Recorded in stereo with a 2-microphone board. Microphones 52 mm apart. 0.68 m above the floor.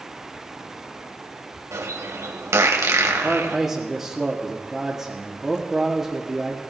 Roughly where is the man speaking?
Centre.